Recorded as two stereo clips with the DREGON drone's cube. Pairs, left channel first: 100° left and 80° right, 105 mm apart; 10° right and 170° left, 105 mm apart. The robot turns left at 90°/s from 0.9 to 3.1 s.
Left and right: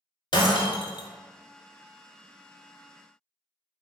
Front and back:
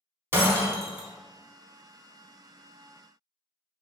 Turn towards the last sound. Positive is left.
turn(degrees=-85)